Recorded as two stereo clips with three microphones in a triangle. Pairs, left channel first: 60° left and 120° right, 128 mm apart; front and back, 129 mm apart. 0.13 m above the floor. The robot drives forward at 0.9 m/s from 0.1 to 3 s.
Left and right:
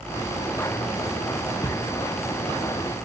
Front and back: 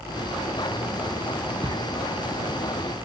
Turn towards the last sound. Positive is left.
turn(degrees=155)